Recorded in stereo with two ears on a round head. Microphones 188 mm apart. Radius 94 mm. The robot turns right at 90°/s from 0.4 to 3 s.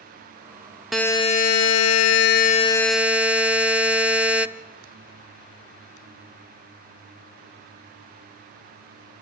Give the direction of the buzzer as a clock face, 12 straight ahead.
12 o'clock.